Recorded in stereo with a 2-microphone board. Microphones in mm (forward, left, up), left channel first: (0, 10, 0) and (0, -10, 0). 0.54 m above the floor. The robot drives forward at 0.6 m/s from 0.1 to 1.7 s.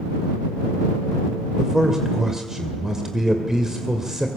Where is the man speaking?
25° right (ahead or behind), 2.5 m.